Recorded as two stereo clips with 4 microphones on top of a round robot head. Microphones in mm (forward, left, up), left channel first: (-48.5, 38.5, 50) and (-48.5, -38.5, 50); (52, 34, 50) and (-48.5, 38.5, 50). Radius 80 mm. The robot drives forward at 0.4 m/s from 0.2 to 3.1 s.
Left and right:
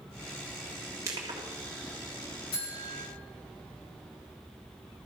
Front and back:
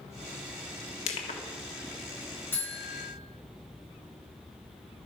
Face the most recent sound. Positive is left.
turn(degrees=70)